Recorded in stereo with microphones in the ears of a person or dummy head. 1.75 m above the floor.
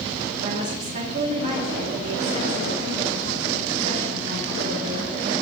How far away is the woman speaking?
About 3 m.